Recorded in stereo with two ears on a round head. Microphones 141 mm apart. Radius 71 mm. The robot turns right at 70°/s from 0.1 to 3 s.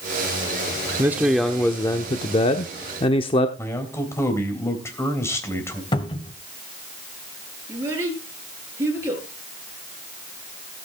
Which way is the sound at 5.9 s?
30° left (ahead or behind).